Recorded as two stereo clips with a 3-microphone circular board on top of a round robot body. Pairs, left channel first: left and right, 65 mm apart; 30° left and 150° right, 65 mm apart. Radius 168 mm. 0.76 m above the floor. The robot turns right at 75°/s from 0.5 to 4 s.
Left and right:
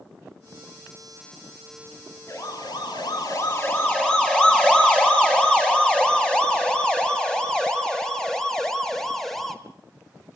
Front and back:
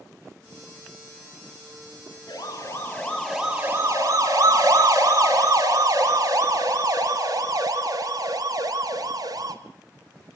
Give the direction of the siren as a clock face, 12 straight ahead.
11 o'clock.